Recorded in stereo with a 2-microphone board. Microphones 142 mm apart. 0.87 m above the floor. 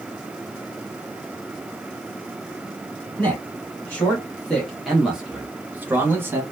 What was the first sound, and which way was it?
A man speaking, 10° left (ahead or behind).